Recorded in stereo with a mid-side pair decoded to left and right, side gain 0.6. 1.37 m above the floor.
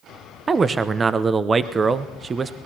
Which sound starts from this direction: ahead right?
A man speaking, at 0.5 s.